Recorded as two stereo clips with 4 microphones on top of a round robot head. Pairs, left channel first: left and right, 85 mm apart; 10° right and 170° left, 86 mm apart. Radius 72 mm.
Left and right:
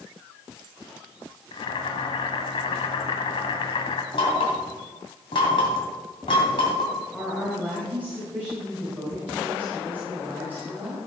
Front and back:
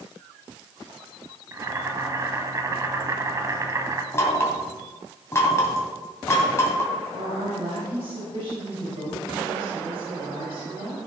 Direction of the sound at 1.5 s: 115° left.